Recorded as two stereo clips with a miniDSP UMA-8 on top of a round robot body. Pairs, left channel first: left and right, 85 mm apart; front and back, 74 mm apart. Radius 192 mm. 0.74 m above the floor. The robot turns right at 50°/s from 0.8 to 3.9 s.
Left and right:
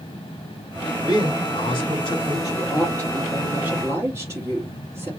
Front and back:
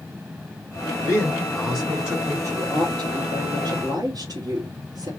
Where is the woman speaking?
135° left, 3.5 m; by 5.1 s 155° right, 3.5 m.